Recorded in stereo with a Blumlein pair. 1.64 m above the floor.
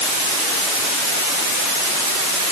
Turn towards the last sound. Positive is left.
No sound to turn to.